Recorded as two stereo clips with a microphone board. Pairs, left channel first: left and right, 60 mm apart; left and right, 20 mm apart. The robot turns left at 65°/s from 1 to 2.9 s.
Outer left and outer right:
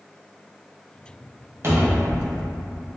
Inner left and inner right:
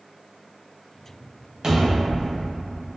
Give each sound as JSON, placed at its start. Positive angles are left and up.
{"t": 1.6, "sound": "a cupboard door", "azimuth_deg": -135, "distance_m": 0.6}